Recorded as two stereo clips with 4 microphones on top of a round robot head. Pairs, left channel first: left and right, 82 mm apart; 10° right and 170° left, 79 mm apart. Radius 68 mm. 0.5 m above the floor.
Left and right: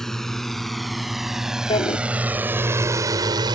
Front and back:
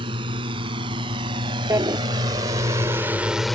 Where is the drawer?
115° left.